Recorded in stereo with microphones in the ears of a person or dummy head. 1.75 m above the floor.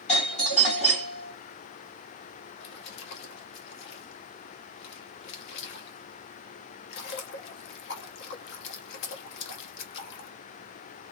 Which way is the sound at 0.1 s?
35° left (ahead or behind).